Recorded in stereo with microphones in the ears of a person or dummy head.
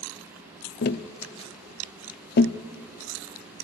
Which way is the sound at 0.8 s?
55° left (ahead or behind).